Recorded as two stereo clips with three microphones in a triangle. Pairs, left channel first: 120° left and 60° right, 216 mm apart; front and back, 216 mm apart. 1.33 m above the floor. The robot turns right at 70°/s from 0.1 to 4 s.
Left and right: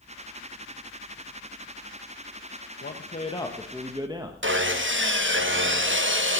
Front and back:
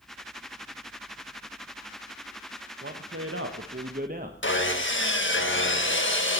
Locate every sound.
2.8 s a man speaking: 145° left, 1.1 m; by 4.3 s 130° right, 1.1 m
4.4 s sawing: 30° right, 1.5 m